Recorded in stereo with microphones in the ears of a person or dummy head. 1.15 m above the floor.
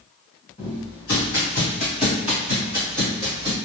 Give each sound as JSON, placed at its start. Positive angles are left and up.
{"t": 0.6, "sound": "footsteps", "side_deg": 25, "distance_m": 1.5}